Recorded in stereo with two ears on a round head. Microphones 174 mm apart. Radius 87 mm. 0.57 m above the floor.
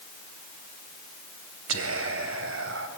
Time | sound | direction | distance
1.7 | whispering | 75° right (ahead or behind) | 2.5 m